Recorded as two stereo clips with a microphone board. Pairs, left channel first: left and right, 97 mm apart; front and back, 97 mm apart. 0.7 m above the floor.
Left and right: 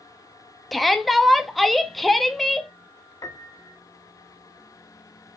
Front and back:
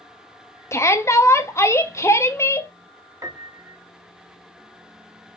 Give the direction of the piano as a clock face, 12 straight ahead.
8 o'clock.